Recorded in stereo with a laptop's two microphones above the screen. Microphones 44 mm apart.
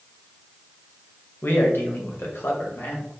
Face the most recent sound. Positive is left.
turn(degrees=70)  # may be behind; listen again after turning